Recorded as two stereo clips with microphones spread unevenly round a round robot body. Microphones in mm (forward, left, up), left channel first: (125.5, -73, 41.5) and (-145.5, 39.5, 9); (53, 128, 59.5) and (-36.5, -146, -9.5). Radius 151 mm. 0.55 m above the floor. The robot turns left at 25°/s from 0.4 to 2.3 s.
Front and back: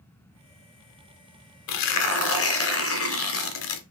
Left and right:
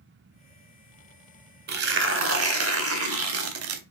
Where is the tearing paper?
45° right, 0.7 m; by 3.8 s 60° right, 0.7 m.